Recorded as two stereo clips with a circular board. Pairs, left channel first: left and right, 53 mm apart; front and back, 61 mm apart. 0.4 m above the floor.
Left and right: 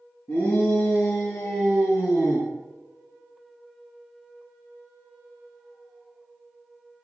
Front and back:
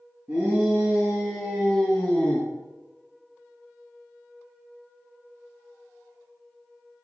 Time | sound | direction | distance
0.3 | a shout | 110° left | 4.5 m